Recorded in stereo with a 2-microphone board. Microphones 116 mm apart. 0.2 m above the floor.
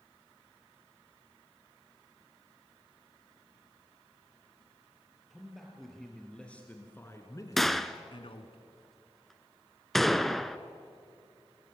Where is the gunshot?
Centre (ahead or behind), 0.8 m.